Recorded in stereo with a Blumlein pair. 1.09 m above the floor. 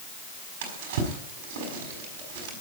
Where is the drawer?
55° right, 5 m.